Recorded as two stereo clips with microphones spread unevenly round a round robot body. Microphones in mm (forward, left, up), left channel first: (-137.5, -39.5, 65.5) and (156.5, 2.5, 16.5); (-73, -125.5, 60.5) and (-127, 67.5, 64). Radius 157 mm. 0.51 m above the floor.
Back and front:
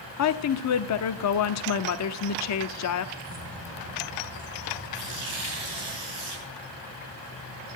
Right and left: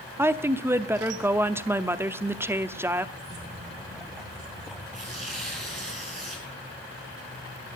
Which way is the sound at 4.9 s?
40° left.